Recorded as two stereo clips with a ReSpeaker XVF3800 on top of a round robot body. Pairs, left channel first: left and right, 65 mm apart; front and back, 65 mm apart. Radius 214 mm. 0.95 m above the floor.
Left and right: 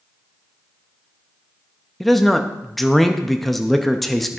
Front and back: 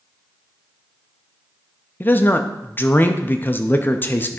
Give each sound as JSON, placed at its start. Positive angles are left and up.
{"t": 2.0, "sound": "a man speaking", "azimuth_deg": 5, "distance_m": 0.9}